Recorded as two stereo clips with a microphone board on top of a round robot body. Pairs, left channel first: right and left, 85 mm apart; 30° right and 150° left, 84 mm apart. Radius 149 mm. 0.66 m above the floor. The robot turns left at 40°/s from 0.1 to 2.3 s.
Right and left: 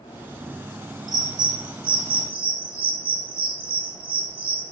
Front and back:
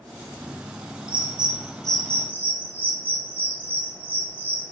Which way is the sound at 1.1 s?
130° left.